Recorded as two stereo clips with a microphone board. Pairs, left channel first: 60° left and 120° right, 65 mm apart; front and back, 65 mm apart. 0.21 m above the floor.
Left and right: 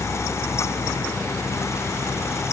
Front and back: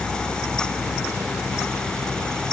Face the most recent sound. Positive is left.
No sound to turn to.